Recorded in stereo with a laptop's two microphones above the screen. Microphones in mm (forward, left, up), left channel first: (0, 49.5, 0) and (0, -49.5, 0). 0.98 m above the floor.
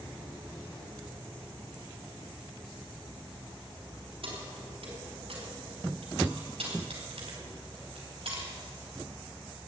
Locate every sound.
4.2 s keys jangling: 70° right (ahead or behind), 5.5 m; by 8.5 s 75° right (ahead or behind), 4 m